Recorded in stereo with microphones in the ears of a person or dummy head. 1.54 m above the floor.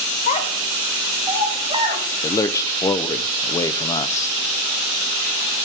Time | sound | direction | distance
0.3 | a child speaking | 45° left (ahead or behind) | 0.7 m
2.2 | a man speaking | 15° left (ahead or behind) | 0.5 m